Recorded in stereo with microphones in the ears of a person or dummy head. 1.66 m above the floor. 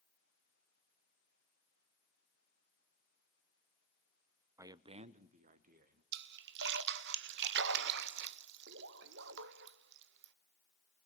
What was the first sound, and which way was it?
A man speaking, 25° right (ahead or behind).